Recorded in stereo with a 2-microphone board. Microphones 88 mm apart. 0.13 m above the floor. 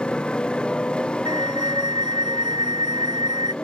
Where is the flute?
55° right (ahead or behind).